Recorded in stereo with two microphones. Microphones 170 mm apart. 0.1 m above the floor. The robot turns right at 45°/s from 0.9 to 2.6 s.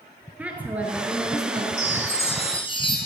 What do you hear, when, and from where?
0.4 s a woman speaking: 165° right, 1.3 m; by 1.7 s 130° right, 1.3 m
1.8 s a chime: 100° left, 1.7 m; by 3.0 s 135° left, 1.7 m